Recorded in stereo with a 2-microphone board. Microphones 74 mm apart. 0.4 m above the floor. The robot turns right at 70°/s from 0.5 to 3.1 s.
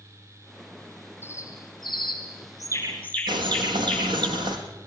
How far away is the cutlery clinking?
I don't hear cutlery clinking.